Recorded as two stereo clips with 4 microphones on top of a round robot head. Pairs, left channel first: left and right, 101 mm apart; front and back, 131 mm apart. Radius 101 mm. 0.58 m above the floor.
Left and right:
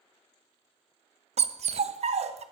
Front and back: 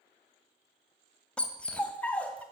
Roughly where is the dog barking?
Right.